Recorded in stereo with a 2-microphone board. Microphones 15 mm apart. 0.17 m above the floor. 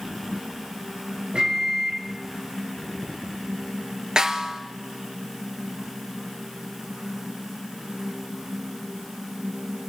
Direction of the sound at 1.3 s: 65° right (ahead or behind).